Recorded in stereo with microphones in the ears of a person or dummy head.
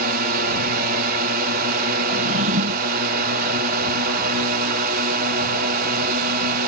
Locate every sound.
0.0 s a drone: 50° right (ahead or behind)
2.1 s a drawer: 40° right (ahead or behind)